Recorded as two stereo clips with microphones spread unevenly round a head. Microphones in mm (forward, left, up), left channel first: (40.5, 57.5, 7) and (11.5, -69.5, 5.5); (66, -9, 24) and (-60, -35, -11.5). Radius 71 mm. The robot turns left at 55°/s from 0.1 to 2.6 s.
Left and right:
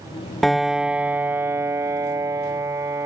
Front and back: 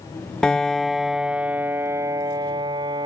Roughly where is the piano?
Ahead.